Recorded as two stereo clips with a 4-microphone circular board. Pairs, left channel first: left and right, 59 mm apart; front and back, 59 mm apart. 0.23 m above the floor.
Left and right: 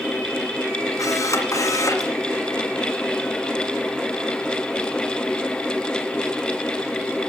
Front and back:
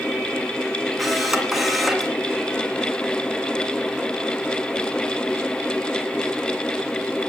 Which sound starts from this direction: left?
A camera shutter, at 1.0 s.